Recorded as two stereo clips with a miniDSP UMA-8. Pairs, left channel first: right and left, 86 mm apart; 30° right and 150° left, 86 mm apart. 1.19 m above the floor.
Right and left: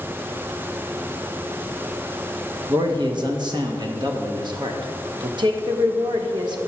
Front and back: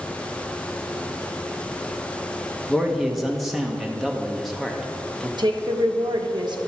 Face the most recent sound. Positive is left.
turn(degrees=120)